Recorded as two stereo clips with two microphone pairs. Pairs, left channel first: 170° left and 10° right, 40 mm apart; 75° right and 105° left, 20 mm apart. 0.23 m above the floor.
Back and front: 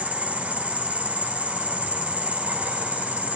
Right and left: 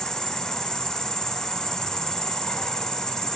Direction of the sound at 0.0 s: 40° right.